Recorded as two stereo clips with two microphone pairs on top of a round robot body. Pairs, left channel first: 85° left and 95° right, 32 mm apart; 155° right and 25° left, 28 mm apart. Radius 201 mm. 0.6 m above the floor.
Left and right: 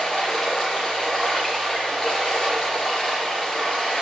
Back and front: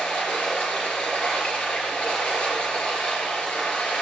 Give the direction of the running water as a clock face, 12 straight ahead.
7 o'clock.